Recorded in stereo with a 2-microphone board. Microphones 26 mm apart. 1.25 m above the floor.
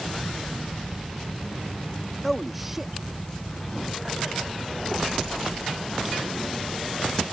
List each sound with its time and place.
2.2 s a man speaking: 5° left (ahead or behind); by 4.5 s 35° right (ahead or behind)